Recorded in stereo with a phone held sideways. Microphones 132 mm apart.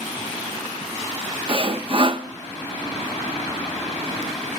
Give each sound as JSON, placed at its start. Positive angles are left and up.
{"t": 1.5, "sound": "sawing", "side_deg": -40, "distance_m": 0.5}